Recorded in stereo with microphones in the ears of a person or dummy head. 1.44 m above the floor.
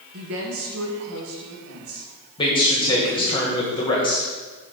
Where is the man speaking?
20° left (ahead or behind), 1.6 m.